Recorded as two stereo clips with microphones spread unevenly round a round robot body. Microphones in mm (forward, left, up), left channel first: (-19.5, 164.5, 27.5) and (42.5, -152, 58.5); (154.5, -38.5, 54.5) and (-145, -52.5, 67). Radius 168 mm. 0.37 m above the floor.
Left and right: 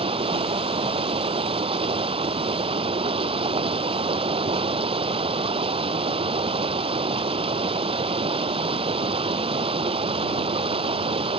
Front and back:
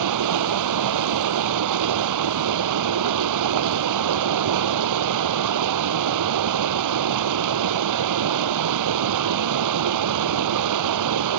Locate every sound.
0.0 s running water: 155° right